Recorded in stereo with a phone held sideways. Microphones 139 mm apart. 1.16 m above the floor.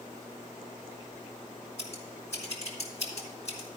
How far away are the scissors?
About 2 m.